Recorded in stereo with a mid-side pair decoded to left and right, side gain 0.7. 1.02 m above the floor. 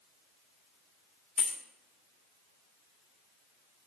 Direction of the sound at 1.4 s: 40° left.